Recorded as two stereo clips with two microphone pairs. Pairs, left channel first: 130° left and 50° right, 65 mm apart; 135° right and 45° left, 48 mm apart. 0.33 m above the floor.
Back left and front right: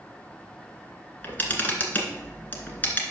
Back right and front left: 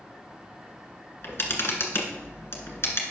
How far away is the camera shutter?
About 1.7 m.